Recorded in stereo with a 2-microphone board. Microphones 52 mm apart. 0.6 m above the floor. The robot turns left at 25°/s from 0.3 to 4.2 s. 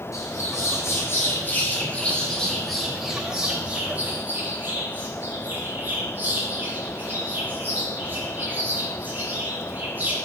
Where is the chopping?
No chopping in this recording.